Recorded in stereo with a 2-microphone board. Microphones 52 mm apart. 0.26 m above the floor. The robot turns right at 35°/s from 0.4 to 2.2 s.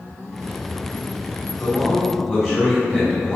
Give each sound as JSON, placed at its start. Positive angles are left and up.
{"t": 1.6, "sound": "a man speaking", "side_deg": -15, "distance_m": 1.8}